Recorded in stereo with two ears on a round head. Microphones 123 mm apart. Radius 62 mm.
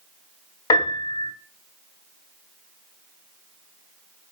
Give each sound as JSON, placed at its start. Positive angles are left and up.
{"t": 0.7, "sound": "a piano", "side_deg": 25, "distance_m": 0.9}